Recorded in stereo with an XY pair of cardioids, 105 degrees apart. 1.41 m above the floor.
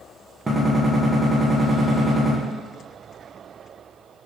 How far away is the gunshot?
About 1.1 m.